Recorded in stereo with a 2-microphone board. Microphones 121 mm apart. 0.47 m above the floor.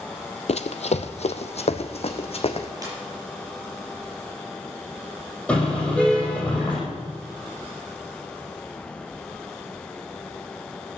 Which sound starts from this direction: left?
Running footsteps, at 0.5 s.